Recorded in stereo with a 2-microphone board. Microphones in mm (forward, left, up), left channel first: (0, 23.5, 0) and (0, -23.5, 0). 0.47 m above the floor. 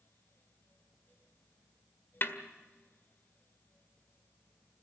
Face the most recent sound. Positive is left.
turn(degrees=50)  # may be behind; listen again after turning